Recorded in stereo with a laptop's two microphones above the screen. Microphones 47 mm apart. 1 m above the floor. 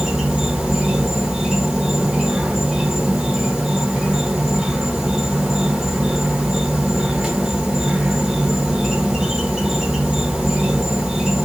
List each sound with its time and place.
0.0 s an insect: 15° right (ahead or behind), 1.4 m